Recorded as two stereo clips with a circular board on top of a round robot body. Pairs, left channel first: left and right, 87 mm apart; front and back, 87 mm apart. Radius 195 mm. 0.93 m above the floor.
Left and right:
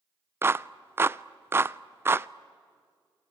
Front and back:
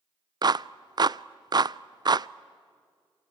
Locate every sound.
0.4 s a clap: 150° right, 0.5 m